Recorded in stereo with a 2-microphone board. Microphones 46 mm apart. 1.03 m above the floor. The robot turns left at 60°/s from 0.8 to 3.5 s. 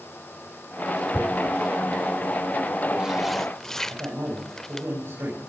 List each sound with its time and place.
1.1 s tearing paper: 40° right (ahead or behind), 1.1 m; by 4.9 s 10° left (ahead or behind), 1.1 m
3.9 s a man speaking: 60° right (ahead or behind), 7.5 m